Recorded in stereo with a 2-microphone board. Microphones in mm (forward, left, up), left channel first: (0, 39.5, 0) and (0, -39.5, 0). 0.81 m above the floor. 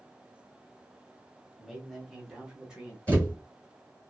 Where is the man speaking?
Centre (ahead or behind), 1.0 m; by 3.0 s 10° right (ahead or behind), 1.0 m.